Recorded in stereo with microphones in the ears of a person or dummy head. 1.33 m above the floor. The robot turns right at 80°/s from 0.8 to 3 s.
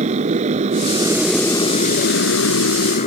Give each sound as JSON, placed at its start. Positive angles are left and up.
{"t": 0.0, "sound": "a motorcycle", "azimuth_deg": -40}